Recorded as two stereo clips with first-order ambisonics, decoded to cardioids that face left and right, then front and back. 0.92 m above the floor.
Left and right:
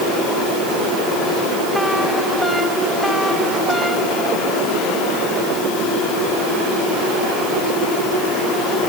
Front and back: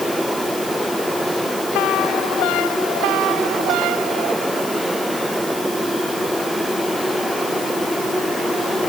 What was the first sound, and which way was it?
Only background noise.